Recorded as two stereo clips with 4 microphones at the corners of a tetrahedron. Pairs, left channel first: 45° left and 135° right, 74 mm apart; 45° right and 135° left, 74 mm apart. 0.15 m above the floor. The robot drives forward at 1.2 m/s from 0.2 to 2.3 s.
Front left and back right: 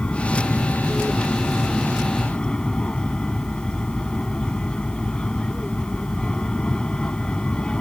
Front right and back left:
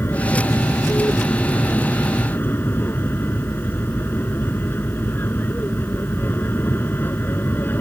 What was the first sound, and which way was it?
An aircraft, 20° right.